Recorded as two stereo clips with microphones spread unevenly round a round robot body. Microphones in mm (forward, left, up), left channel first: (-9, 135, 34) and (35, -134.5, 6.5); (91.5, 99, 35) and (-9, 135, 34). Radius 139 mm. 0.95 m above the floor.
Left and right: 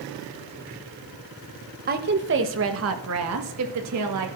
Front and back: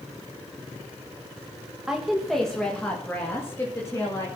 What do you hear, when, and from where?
1.9 s a woman speaking: 120° right, 1.1 m; by 4.3 s 90° right, 2.5 m